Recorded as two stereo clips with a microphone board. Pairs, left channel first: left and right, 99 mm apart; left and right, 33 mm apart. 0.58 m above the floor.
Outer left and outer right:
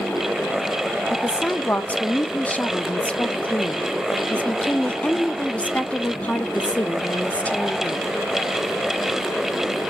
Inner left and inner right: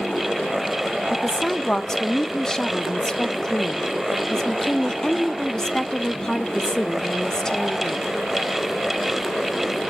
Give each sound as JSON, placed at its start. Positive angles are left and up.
{"t": 1.1, "sound": "a woman speaking", "side_deg": 15, "distance_m": 0.7}